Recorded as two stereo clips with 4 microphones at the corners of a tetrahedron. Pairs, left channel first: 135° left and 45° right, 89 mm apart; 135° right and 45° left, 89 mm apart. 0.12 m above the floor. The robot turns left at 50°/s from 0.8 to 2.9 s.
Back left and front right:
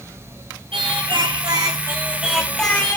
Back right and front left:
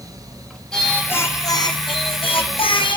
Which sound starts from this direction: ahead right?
Singing, at 0.7 s.